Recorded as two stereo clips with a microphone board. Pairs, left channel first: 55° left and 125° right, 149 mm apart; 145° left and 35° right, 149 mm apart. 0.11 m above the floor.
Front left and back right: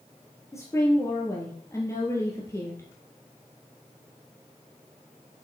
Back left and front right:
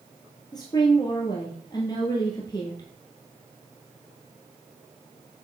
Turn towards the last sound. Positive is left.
turn(degrees=110)